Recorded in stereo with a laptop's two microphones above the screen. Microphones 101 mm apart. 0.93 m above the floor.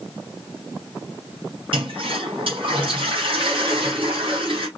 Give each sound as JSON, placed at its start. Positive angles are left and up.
{"t": 1.7, "sound": "a toilet flushing", "side_deg": -60, "distance_m": 4.0}